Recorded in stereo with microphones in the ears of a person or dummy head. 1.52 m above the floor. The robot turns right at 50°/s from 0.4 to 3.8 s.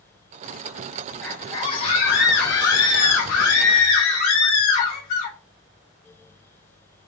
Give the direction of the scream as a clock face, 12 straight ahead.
12 o'clock.